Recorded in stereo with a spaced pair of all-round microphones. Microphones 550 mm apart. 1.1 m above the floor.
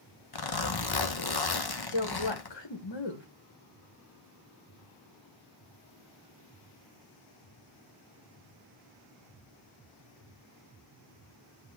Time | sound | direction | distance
0.3 | a zipper | 45° left (ahead or behind) | 0.8 m
1.9 | a woman speaking | 50° left (ahead or behind) | 1.3 m